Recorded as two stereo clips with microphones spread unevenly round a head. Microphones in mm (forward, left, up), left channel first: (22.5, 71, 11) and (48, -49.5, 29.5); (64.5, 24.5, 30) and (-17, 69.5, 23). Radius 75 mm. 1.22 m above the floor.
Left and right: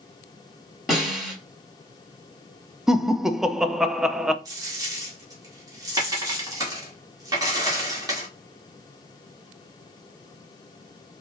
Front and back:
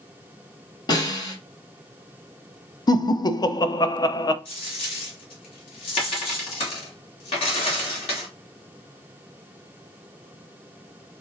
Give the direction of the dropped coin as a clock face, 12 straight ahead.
1 o'clock.